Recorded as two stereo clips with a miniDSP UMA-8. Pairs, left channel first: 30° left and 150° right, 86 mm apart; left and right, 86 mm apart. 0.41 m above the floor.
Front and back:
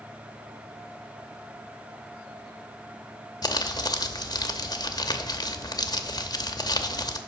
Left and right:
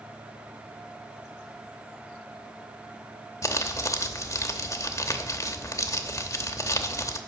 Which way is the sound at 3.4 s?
50° left.